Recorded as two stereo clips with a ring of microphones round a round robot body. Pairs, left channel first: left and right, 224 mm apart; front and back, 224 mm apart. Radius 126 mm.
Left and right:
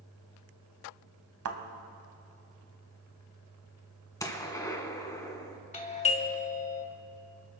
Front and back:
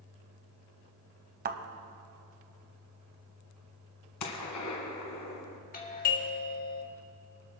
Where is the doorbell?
40° left, 1.6 m.